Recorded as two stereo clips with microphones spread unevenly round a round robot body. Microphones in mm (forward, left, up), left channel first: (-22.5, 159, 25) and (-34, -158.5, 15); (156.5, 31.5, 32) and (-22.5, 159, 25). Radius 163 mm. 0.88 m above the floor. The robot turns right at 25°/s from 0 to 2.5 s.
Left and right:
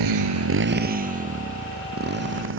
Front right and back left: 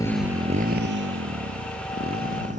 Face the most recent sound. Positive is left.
turn(degrees=-145)